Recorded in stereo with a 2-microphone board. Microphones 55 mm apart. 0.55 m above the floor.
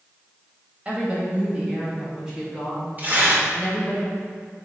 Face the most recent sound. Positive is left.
turn(degrees=-35)  # may be behind; listen again after turning